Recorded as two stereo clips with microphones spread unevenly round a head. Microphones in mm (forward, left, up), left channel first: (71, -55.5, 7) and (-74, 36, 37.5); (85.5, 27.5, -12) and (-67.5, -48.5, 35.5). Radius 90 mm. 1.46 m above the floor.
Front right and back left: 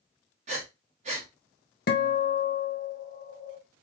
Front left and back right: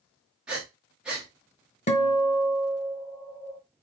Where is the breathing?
140° left, 0.9 m.